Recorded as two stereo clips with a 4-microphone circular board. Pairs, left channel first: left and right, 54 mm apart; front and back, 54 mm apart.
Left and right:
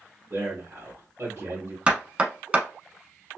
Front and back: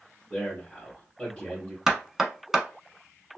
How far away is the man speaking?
About 1.9 m.